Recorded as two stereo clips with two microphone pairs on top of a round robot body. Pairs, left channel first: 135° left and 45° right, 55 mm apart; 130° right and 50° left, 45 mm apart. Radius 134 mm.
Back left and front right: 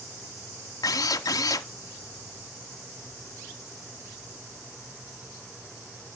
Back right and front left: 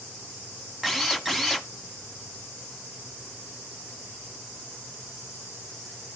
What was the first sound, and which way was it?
A drill, 140° left.